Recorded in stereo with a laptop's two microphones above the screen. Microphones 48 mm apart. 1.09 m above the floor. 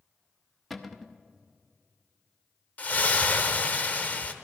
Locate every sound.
0.7 s a cupboard door: centre (ahead or behind), 0.8 m
2.8 s a splash: 35° left (ahead or behind), 0.9 m